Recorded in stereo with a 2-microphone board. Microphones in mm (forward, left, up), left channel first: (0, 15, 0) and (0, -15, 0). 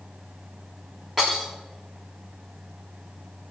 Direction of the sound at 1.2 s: 15° right (ahead or behind).